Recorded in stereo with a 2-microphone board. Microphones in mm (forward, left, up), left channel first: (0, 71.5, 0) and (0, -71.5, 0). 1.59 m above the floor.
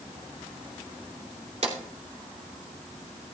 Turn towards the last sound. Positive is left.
turn(degrees=-55)  # may be behind; listen again after turning